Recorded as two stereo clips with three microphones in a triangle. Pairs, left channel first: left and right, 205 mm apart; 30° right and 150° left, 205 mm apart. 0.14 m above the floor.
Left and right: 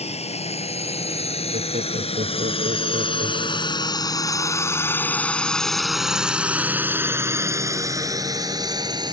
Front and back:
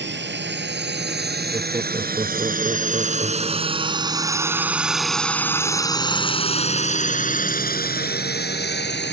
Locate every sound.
0.0 s a drone: 145° left; by 9.1 s 25° right
1.5 s laughter: 140° right